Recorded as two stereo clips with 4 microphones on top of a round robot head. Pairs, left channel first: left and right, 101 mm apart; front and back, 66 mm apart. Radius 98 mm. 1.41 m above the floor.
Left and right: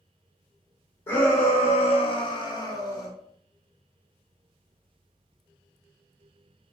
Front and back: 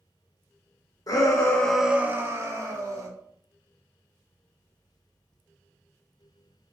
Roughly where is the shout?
Ahead left.